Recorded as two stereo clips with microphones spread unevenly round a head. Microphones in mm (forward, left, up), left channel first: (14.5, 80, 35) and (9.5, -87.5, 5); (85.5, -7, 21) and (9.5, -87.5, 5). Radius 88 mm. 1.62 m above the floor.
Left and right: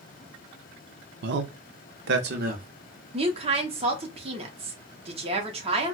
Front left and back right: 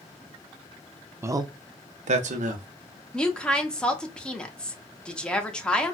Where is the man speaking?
65° right, 0.6 m; by 2.7 s 135° right, 1.0 m.